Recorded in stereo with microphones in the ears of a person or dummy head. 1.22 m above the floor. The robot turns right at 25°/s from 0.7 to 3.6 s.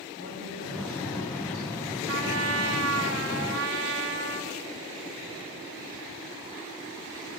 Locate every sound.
0.2 s a woman speaking: 75° right, 3 m; by 2.0 s 45° right, 3 m
2.1 s a trumpet: 105° right, 0.6 m; by 4.6 s 65° right, 0.6 m